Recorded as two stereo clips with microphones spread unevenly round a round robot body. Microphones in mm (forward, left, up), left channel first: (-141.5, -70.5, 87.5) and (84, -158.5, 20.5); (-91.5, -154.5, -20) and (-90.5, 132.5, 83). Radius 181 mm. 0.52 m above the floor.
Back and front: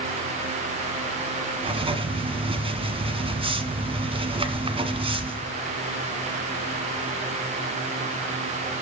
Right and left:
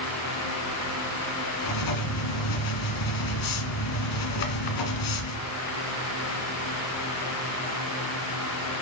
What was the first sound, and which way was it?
Writing, 95° right.